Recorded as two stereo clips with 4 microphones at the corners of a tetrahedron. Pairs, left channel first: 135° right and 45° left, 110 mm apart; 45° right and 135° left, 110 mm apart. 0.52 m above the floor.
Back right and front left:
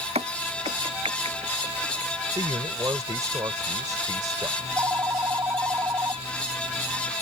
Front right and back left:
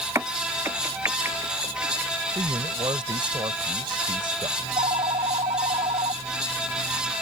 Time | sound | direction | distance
0.1 | a crack | 65° left | ?
2.4 | a man speaking | 100° left | ?
4.6 | a phone ringing | 110° left | ?